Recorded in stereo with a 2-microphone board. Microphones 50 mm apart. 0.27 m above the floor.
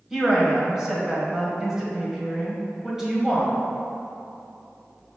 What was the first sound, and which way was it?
A woman speaking, 10° right (ahead or behind).